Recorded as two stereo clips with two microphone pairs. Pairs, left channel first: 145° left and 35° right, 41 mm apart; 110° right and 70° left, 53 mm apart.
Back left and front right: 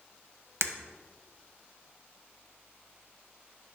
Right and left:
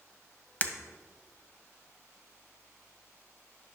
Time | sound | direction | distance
0.6 | breaking glass | 50° right | 0.7 m